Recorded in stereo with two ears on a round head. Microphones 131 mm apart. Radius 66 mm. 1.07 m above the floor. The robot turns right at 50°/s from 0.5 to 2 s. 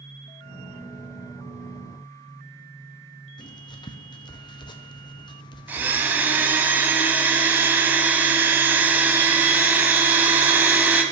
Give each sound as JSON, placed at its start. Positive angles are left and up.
{"t": 3.4, "sound": "writing", "side_deg": 30, "distance_m": 0.6}
{"t": 5.7, "sound": "a blender", "side_deg": -15, "distance_m": 1.0}